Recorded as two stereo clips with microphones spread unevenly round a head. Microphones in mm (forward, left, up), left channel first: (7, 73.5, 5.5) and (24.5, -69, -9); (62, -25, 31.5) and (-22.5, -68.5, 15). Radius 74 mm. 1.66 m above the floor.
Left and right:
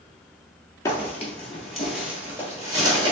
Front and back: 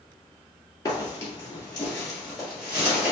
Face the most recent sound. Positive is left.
turn(degrees=-70)